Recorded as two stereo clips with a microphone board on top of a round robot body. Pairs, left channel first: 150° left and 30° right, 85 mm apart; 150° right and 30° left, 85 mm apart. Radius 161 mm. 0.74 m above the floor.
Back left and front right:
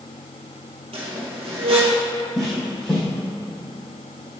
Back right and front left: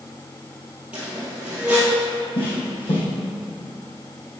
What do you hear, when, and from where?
0.9 s a squeak: 45° right, 1.7 m
2.4 s footsteps: 125° right, 3 m